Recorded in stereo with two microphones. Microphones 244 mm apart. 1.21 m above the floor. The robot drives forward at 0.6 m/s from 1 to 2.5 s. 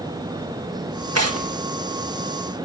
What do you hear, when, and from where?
1.1 s tearing paper: 80° right, 1.6 m; by 1.5 s 85° right, 1.5 m